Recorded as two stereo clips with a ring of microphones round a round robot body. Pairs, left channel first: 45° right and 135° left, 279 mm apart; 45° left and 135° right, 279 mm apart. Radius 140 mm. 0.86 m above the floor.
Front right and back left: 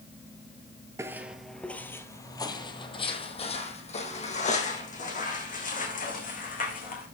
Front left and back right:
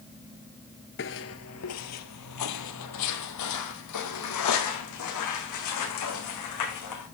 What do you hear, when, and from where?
1.0 s footsteps: 60° left, 1.0 m; by 7.1 s 15° left, 4.5 m